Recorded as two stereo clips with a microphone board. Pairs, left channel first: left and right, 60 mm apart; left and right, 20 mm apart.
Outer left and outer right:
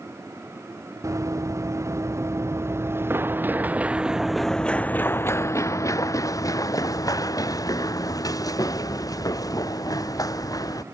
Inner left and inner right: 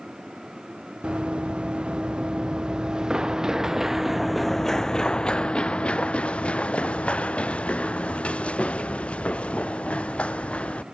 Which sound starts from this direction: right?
Running footsteps, at 1.0 s.